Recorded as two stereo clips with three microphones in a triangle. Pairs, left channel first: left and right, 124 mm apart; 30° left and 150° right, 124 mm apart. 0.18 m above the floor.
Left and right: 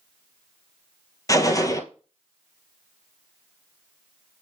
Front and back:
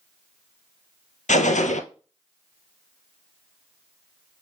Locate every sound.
1.3 s a gunshot: 30° left, 1.0 m